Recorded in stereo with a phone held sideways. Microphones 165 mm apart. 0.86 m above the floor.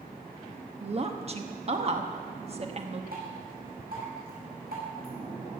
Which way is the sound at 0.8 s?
45° right (ahead or behind).